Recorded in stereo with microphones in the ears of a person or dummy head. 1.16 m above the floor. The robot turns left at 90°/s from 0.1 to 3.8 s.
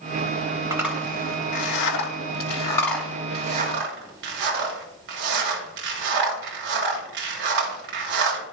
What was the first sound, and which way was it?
A zipper, 20° right (ahead or behind).